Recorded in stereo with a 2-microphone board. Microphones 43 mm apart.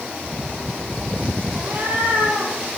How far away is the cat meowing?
About 4 m.